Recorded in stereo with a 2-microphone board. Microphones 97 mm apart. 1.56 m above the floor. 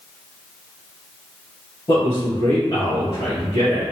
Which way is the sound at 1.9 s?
60° left (ahead or behind).